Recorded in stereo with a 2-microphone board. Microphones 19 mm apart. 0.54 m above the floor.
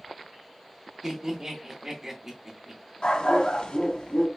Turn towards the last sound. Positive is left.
turn(degrees=70)  # may be behind; listen again after turning